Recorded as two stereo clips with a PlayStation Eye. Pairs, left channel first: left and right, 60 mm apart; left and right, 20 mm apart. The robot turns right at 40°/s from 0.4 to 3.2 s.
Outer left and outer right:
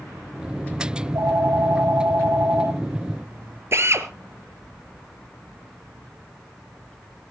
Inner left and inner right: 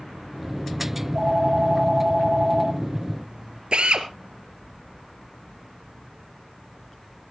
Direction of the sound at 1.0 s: 125° right.